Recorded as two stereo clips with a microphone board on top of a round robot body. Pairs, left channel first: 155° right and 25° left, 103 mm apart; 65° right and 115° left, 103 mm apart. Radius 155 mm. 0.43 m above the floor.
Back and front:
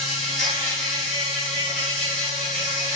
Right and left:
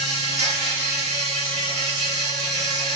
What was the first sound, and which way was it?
An insect, 120° left.